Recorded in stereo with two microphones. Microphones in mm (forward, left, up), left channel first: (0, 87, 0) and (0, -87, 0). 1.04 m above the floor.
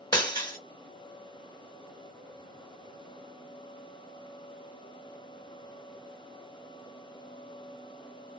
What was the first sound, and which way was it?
Breaking glass, 25° left (ahead or behind).